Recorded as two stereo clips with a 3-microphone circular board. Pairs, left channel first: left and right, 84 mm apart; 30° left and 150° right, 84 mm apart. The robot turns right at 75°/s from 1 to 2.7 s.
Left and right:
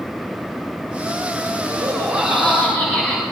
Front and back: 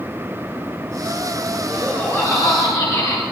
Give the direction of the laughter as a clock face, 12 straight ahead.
2 o'clock.